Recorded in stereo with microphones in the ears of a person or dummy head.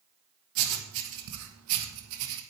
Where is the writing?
70° right (ahead or behind), 1.3 m.